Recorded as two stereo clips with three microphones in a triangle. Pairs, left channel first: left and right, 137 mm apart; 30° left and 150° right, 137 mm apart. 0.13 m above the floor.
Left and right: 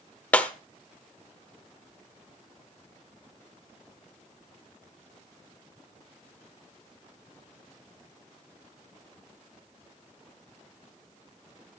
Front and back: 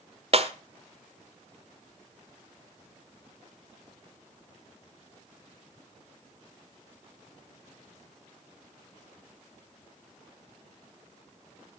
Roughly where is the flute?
No flute in this recording.